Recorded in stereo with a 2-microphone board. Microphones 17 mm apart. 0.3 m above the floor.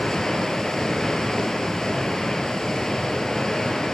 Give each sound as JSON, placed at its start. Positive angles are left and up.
{"t": 0.0, "sound": "running water", "side_deg": 50, "distance_m": 0.9}